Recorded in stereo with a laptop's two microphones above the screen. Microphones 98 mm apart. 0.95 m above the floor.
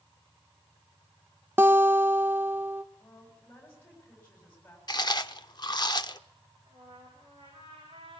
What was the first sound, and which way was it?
A guitar, 25° right (ahead or behind).